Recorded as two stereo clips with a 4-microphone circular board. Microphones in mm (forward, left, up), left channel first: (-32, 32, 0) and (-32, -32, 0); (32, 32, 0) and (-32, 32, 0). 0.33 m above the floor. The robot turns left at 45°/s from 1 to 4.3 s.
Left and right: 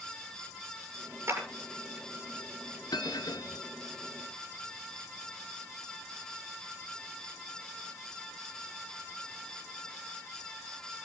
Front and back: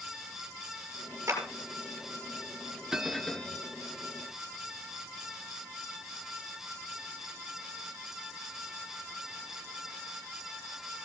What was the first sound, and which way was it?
A clap, 130° right.